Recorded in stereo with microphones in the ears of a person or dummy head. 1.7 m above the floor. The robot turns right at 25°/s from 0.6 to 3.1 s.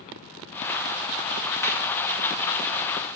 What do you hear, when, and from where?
1.6 s a clap: 20° left (ahead or behind), 2.5 m; by 1.9 s 15° left (ahead or behind), 2.5 m